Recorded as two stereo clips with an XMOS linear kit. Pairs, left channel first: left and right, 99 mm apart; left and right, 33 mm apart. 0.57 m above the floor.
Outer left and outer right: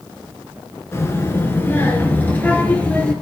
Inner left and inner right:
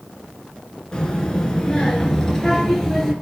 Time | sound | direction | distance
0.9 | a child speaking | 30° left (ahead or behind) | 4 m